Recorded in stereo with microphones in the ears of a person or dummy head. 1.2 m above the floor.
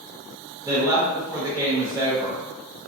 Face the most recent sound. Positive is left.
turn(degrees=-20)  # may be behind; listen again after turning